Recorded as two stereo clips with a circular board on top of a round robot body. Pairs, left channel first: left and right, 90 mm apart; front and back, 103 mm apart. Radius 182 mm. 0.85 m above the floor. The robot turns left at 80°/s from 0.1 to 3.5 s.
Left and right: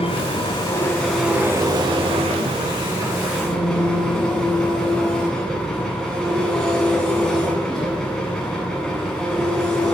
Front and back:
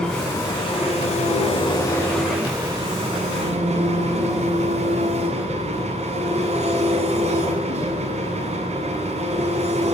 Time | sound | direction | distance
0.0 | an engine running | 85° left | 8.5 m